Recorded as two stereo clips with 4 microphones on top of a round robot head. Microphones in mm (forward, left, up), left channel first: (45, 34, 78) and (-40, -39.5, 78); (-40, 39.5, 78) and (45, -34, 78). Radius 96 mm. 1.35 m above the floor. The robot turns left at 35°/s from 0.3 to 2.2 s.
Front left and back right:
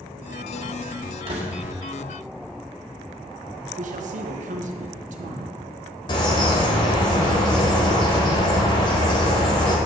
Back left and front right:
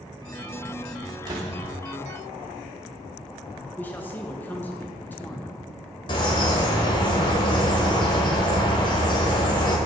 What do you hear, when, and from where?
1.3 s a door slam: 95° right, 1.7 m; by 1.6 s 105° right, 1.7 m
3.8 s a man speaking: 145° right, 1.3 m
6.1 s a bird: 90° left, 1.6 m